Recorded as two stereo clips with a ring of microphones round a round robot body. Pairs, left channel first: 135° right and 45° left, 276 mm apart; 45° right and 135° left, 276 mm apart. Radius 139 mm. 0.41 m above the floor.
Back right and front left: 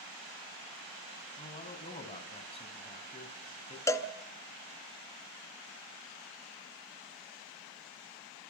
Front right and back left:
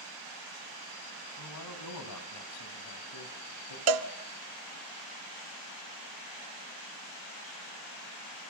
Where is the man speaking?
65° right, 3 m.